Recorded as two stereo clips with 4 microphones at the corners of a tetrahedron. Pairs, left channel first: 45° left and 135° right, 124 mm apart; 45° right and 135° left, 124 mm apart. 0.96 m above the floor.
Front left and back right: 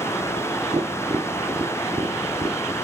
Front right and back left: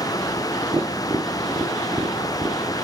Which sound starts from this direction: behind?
Tapping, at 0.7 s.